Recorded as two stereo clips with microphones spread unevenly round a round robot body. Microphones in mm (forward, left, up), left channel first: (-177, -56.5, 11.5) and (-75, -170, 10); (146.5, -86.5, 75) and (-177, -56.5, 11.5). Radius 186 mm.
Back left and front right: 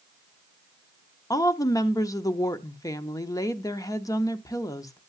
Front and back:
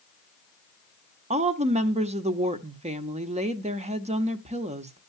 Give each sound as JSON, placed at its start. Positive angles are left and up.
{"t": 1.3, "sound": "a woman speaking", "azimuth_deg": 180, "distance_m": 0.8}